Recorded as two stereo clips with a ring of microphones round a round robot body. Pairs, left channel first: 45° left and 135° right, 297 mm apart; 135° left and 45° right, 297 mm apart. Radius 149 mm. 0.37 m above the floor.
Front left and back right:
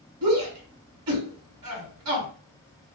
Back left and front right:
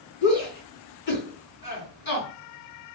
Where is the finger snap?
No finger snap in this recording.